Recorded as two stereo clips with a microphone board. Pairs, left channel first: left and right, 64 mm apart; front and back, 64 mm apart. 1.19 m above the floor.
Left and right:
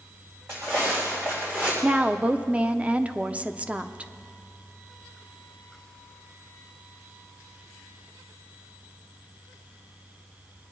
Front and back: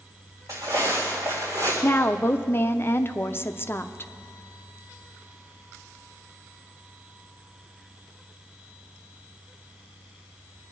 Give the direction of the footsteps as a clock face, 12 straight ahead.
5 o'clock.